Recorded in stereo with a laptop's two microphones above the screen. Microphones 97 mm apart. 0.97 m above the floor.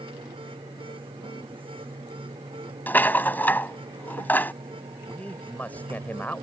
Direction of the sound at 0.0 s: 60° right (ahead or behind).